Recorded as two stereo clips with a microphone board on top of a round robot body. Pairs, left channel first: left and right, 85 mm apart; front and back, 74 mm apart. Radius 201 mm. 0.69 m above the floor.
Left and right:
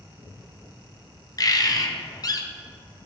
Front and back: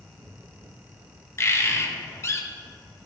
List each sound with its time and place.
1.4 s a bird: 50° left, 0.9 m